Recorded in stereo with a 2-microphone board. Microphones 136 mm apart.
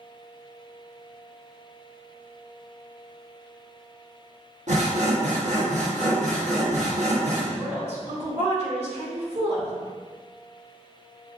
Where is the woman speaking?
55° right (ahead or behind), 1.3 m.